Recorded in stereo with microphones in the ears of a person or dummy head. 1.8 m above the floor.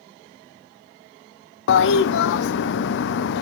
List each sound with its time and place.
1.7 s a toilet flushing: 70° left (ahead or behind), 0.6 m